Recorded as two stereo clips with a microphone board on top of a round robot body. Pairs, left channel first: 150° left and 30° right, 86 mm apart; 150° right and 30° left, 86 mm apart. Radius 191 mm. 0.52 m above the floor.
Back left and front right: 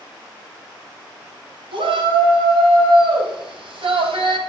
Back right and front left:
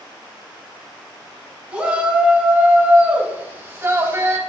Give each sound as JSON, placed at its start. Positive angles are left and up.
{"t": 1.7, "sound": "a shout", "azimuth_deg": -45, "distance_m": 5.5}